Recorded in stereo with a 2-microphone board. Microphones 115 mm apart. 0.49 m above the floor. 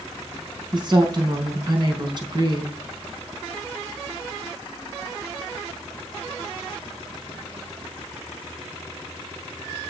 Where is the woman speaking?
40° right (ahead or behind), 4.5 m.